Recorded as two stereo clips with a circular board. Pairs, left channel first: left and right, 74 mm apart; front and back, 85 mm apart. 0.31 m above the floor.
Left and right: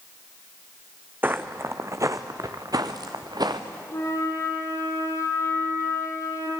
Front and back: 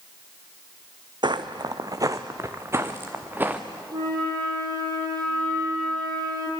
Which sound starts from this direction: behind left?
A flute, at 3.9 s.